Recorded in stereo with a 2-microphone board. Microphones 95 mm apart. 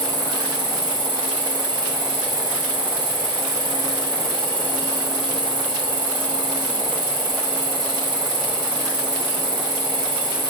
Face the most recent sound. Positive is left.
turn(degrees=-50)  # may be behind; listen again after turning